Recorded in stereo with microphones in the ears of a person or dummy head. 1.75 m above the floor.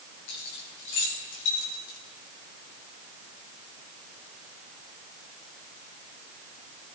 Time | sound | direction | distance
0.3 | keys jangling | 65° left (ahead or behind) | 3.5 m